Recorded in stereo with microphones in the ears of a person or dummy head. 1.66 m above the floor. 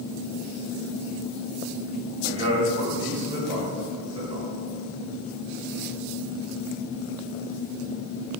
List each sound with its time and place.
2.2 s a man speaking: 30° right (ahead or behind), 1.9 m; by 4.5 s 40° right (ahead or behind), 3.5 m